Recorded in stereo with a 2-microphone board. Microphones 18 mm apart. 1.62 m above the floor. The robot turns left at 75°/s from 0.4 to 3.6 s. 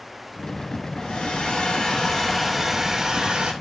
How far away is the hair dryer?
About 3 m.